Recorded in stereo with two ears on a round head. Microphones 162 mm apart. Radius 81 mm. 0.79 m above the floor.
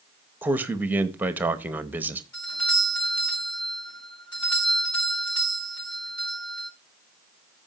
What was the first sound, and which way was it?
A man speaking, 10° right (ahead or behind).